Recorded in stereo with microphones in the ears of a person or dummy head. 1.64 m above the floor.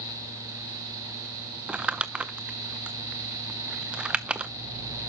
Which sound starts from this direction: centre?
Crumpling, at 1.7 s.